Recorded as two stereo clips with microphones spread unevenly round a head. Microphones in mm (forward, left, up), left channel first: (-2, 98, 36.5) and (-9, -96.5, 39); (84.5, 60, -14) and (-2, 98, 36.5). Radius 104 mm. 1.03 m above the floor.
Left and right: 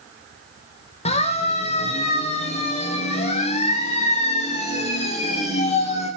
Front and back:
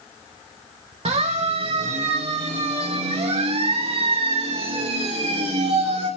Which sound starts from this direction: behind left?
A siren, at 1.1 s.